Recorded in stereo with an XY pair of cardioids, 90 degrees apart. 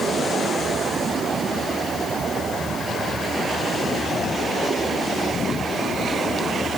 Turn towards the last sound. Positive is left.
No sound to turn to.